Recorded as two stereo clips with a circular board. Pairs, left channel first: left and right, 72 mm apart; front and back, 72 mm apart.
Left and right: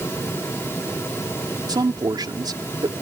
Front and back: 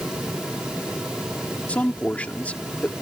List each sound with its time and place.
1.7 s a man speaking: 70° right